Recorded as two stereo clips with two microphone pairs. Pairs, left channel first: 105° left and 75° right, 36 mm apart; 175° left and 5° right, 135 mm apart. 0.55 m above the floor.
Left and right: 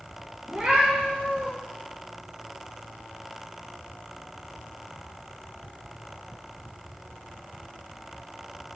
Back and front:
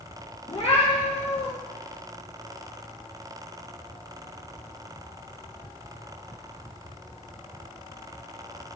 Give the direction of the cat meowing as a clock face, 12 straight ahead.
5 o'clock.